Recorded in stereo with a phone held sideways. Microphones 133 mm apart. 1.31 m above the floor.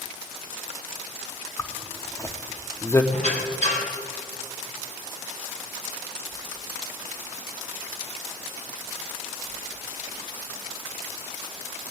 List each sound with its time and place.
1.6 s a zipper: 20° left (ahead or behind), 0.8 m
3.1 s a squeak: 55° left (ahead or behind), 2.5 m